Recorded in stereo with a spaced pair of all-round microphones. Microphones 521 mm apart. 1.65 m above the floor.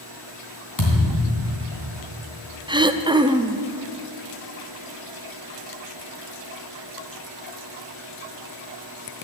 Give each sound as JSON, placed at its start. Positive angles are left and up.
{"t": 0.8, "sound": "a thud", "side_deg": 35, "distance_m": 3.5}
{"t": 2.7, "sound": "throat clearing", "side_deg": -10, "distance_m": 0.6}